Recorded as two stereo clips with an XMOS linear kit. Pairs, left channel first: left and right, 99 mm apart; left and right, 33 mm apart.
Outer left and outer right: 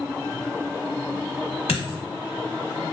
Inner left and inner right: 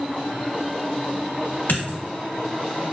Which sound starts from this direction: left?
A dropped coin, at 1.7 s.